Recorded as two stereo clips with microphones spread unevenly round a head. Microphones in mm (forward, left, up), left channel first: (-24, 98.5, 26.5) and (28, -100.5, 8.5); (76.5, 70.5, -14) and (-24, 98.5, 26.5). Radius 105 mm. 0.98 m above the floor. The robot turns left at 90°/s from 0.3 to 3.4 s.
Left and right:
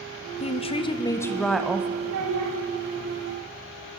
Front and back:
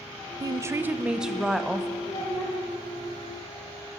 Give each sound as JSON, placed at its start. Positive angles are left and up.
{"t": 0.4, "sound": "a woman speaking", "azimuth_deg": 110, "distance_m": 0.6}
{"t": 2.0, "sound": "a child speaking", "azimuth_deg": -55, "distance_m": 1.1}